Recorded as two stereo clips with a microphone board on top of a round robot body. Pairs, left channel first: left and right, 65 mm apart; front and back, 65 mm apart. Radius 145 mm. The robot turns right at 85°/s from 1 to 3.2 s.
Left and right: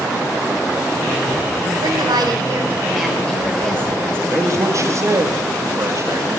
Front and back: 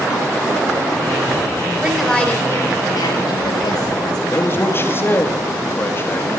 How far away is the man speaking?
About 2.5 m.